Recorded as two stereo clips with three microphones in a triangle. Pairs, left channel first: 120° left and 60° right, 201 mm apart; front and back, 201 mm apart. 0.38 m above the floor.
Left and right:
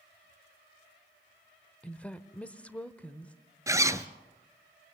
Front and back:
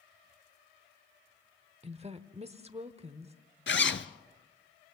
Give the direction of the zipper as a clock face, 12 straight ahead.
11 o'clock.